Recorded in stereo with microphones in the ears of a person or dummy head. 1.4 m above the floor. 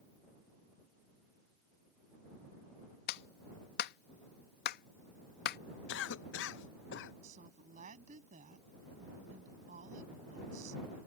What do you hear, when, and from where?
3.1 s a clap: 60° left (ahead or behind)
5.9 s a cough: 70° left (ahead or behind)
7.2 s a woman speaking: 45° right (ahead or behind)